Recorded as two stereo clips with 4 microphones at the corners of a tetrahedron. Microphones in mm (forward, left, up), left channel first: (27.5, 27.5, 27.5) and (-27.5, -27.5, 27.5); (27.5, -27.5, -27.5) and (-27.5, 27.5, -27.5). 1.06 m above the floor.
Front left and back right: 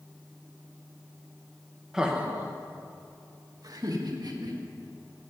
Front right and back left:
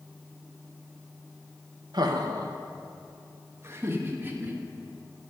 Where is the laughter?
145° left, 0.9 m; by 4.6 s 160° right, 1.7 m.